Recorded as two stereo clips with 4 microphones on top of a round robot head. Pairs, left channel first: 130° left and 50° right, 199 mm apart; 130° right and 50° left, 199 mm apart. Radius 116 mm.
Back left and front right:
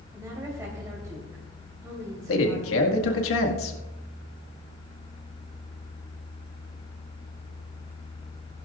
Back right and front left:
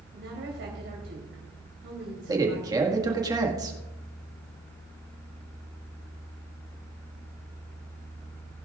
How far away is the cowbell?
No cowbell in this recording.